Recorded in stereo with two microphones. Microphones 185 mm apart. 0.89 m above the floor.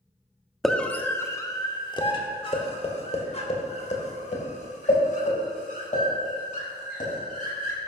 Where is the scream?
Centre (ahead or behind), 1.2 m; by 7.8 s 50° left (ahead or behind), 6 m.